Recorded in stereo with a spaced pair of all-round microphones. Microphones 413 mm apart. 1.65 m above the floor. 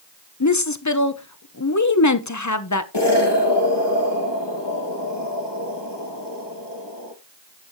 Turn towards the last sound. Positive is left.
turn(degrees=75)  # may be behind; listen again after turning